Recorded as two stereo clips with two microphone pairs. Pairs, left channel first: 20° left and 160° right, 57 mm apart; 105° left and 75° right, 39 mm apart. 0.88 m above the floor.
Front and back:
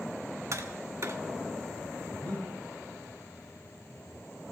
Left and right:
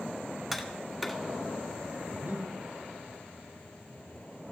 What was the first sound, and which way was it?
Tapping, 160° right.